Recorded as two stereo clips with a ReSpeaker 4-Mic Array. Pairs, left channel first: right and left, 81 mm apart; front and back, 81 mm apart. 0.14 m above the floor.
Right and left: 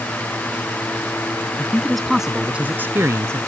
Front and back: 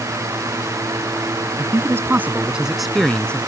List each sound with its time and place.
1.6 s a man speaking: 160° right; by 3.4 s 70° left